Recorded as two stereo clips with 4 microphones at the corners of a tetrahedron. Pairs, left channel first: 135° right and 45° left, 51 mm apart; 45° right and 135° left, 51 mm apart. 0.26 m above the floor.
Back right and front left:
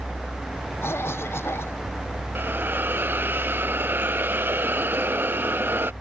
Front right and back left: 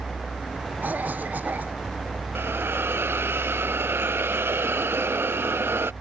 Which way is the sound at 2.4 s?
90° left.